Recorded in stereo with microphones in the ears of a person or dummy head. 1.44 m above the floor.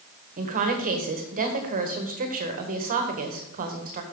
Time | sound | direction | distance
0.4 | a woman speaking | 45° right (ahead or behind) | 1.4 m